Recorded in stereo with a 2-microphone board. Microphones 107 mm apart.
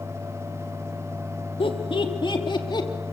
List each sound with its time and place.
1.6 s laughter: 55° left (ahead or behind), 3 m; by 2.9 s 40° left (ahead or behind), 3 m